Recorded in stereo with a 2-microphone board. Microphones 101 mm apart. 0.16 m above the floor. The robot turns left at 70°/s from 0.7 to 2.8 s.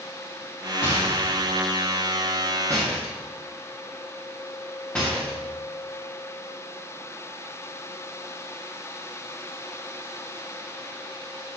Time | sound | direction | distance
0.8 | a rattle | 30° left (ahead or behind) | 4 m